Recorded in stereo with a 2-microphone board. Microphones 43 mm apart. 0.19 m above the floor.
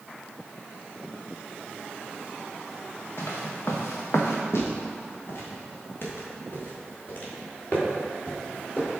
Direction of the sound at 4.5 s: 85° left.